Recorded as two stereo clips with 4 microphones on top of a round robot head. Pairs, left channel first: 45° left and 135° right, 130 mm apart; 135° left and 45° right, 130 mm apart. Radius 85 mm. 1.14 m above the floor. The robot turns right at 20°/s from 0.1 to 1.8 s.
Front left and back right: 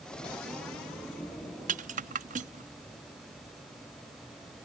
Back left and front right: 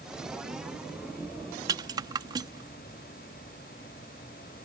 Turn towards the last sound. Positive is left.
turn(degrees=-105)